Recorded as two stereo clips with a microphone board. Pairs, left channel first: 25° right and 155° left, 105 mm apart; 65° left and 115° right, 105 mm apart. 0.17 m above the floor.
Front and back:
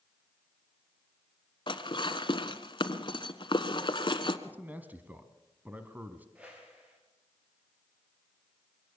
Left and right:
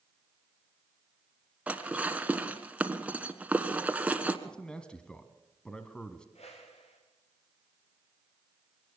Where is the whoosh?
80° left, 6 m.